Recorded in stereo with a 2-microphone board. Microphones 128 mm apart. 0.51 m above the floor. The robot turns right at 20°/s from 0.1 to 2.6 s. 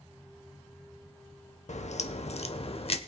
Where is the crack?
70° left (ahead or behind), 0.7 m; by 3.0 s 55° left (ahead or behind), 0.7 m.